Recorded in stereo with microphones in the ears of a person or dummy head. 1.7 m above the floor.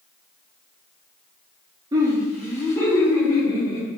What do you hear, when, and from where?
1.9 s laughter: 20° right (ahead or behind), 0.6 m; by 3.9 s 25° left (ahead or behind), 1.4 m